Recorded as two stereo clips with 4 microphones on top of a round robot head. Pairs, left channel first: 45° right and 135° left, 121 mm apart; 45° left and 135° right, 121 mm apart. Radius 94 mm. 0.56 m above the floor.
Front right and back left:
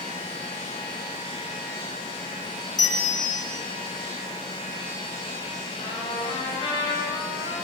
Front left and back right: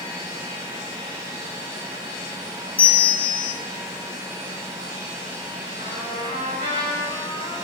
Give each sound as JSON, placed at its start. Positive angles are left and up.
{"t": 2.8, "sound": "a bell", "azimuth_deg": 10, "distance_m": 2.0}
{"t": 5.8, "sound": "a trumpet", "azimuth_deg": -95, "distance_m": 7.0}